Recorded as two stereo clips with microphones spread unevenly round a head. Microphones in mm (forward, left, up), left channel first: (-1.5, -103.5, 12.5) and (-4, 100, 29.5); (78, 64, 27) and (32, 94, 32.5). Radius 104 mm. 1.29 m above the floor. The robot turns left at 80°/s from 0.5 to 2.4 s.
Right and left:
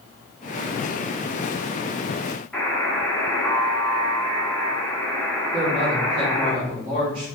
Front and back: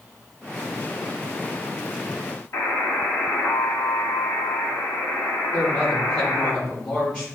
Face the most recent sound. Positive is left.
turn(degrees=40)